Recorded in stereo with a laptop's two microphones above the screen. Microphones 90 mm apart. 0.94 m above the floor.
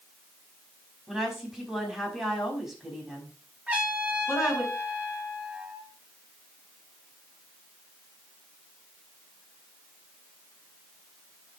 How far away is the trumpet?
About 3 m.